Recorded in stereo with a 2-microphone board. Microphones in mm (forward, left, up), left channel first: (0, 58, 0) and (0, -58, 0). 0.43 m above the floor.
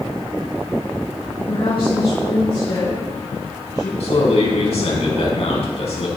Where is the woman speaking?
50° left (ahead or behind), 3.5 m; by 3.9 s 30° left (ahead or behind), 4 m.